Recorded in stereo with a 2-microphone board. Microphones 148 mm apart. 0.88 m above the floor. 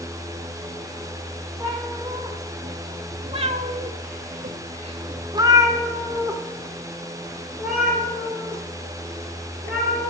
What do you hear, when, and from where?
1.6 s a cat meowing: 20° right (ahead or behind), 1.6 m; by 10.1 s centre (ahead or behind), 3 m